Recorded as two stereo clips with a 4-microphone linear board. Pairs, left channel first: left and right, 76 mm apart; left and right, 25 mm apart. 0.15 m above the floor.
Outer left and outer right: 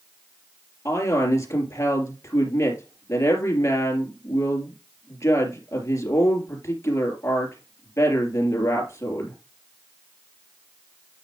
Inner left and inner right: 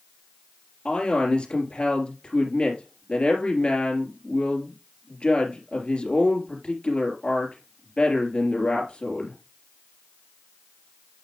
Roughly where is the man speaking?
Left.